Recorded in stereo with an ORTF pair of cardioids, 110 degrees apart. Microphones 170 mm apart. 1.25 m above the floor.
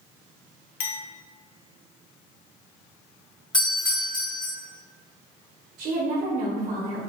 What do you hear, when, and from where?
0.8 s a clink: 60° left, 0.6 m
3.5 s a doorbell: 25° left, 1.7 m
5.8 s a woman speaking: 50° right, 1.1 m